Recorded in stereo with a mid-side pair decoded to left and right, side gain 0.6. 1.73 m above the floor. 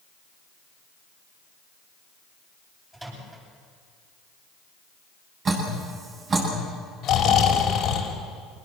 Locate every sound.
2.9 s a microwave: 15° right, 9 m
5.5 s dripping: 40° right, 9.5 m
7.0 s snoring: 55° left, 4 m